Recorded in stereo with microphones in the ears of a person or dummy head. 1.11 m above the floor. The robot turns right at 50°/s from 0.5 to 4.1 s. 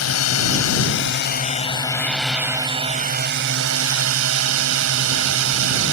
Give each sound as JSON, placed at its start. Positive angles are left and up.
{"t": 0.0, "sound": "a drone", "azimuth_deg": 90}